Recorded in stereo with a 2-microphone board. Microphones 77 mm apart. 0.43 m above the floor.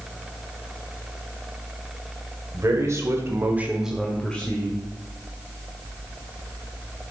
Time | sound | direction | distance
2.5 | a man speaking | 45° right (ahead or behind) | 1.8 m